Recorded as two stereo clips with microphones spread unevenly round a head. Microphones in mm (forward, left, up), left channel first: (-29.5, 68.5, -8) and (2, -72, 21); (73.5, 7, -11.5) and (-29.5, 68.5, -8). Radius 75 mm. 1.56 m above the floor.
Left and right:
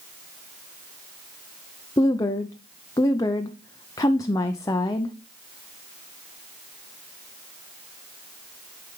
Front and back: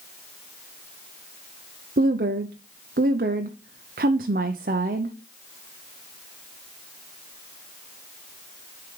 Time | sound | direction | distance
2.0 | a woman speaking | 165° left | 0.6 m